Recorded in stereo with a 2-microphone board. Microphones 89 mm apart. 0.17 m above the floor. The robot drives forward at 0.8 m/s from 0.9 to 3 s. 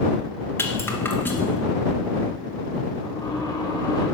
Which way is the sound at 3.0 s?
50° left (ahead or behind).